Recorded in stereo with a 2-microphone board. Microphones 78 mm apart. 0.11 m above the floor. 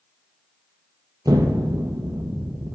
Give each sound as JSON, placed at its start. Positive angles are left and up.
{"t": 1.2, "sound": "an explosion", "side_deg": -55, "distance_m": 0.9}